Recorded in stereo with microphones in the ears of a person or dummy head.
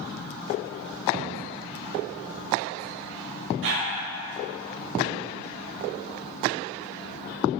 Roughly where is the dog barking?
Right.